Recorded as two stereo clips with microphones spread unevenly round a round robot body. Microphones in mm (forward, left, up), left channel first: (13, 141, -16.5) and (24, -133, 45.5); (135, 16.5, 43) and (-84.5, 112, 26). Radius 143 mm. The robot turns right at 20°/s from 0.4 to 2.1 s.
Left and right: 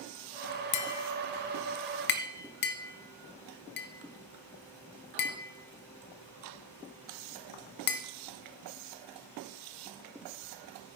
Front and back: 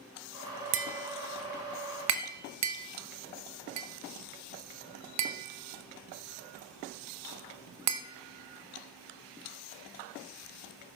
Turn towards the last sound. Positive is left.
turn(degrees=145)